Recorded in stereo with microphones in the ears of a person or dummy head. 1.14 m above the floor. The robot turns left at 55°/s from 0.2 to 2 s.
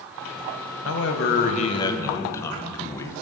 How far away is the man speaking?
About 0.8 m.